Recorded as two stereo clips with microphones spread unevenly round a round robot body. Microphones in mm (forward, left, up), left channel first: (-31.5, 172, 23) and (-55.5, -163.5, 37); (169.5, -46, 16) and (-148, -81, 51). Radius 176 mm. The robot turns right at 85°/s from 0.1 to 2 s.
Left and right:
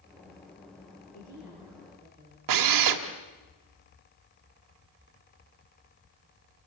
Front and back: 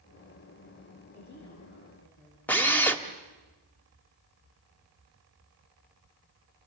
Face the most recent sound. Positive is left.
turn(degrees=-75)